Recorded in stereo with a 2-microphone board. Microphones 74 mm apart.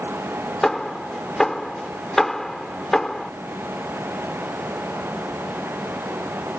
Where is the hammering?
5° left (ahead or behind).